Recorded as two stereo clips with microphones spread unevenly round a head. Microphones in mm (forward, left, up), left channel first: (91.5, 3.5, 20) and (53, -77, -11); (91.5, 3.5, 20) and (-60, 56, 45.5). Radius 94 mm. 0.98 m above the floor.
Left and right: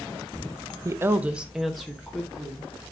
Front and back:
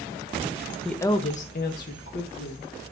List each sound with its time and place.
0.8 s a woman speaking: 105° right, 0.6 m; by 2.7 s 20° right, 2 m